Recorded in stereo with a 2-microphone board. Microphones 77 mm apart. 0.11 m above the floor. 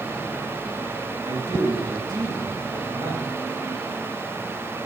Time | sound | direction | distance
1.2 | a man speaking | 60° right (ahead or behind) | 3.5 m